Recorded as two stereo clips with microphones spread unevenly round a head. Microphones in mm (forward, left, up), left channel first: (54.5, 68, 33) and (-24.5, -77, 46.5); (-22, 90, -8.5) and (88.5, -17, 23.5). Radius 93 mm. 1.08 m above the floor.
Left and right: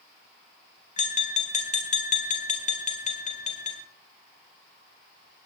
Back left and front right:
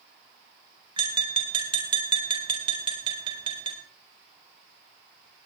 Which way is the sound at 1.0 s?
15° left.